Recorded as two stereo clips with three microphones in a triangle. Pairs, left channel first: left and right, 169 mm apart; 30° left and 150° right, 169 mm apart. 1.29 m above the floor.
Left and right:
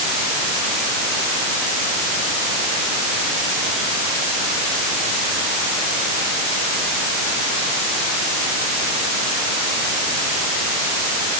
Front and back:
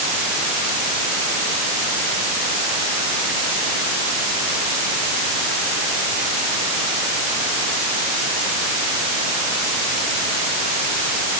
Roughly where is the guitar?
No guitar in this recording.